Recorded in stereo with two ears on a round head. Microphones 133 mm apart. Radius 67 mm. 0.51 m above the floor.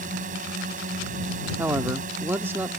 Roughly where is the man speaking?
Centre.